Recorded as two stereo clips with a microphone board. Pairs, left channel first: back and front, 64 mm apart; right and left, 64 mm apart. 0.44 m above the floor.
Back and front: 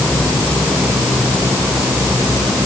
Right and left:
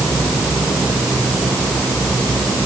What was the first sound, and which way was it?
Only background noise.